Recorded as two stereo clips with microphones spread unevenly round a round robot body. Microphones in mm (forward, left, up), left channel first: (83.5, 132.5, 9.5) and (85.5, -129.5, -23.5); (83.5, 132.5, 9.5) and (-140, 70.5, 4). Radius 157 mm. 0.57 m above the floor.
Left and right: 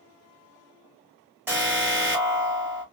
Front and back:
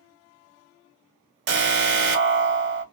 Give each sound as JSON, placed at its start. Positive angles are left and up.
{"t": 1.5, "sound": "an alarm", "azimuth_deg": -165, "distance_m": 0.5}